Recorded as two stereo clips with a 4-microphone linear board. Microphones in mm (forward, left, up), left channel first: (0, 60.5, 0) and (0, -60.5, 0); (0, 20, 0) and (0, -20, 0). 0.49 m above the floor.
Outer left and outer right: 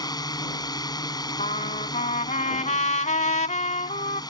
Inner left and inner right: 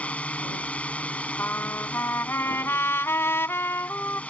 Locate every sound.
0.0 s a drone: 35° left (ahead or behind)
1.4 s a trumpet: 90° left